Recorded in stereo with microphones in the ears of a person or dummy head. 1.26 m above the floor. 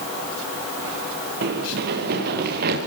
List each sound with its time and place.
1.4 s running footsteps: 55° right (ahead or behind), 5.5 m; by 2.8 s 50° right (ahead or behind), 7 m